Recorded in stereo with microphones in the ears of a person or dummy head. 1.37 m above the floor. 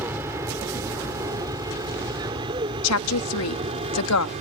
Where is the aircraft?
15° right (ahead or behind); by 4.4 s 35° right (ahead or behind).